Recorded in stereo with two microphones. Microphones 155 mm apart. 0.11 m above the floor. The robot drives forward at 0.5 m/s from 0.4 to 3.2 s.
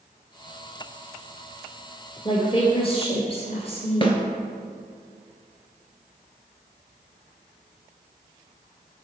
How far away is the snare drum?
About 1.0 m.